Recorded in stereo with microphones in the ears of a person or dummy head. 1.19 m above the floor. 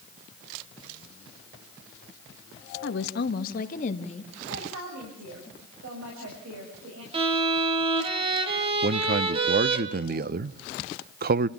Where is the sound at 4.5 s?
80° right, 6.5 m.